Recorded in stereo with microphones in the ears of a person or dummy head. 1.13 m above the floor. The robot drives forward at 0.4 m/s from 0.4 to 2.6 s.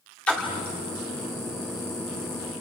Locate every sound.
0.3 s a splash: 5° left (ahead or behind), 2.5 m